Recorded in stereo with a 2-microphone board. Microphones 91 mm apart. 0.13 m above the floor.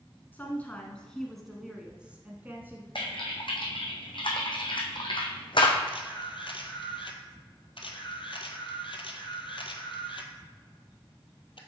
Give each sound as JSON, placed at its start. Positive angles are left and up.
{"t": 0.3, "sound": "a woman speaking", "side_deg": 20, "distance_m": 1.2}
{"t": 3.0, "sound": "typing on a keyboard", "side_deg": 60, "distance_m": 1.5}
{"t": 5.9, "sound": "a camera shutter", "side_deg": 65, "distance_m": 0.9}